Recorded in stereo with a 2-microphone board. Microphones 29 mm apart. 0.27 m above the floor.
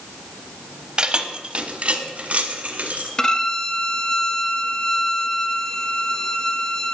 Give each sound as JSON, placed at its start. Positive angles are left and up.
{"t": 1.0, "sound": "keys jangling", "side_deg": -35, "distance_m": 0.8}
{"t": 3.2, "sound": "a violin", "side_deg": 20, "distance_m": 1.0}